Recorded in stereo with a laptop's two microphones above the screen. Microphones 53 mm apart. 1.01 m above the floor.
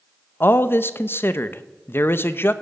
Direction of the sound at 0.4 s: 45° left (ahead or behind).